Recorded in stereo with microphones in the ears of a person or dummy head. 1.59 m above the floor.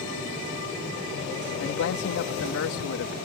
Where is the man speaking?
65° left (ahead or behind).